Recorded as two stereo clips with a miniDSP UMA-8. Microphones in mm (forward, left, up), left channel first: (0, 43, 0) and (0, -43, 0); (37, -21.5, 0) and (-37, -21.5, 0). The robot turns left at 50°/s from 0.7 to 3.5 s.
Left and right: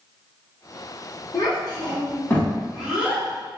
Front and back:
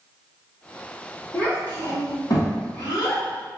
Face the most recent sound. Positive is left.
turn(degrees=-35)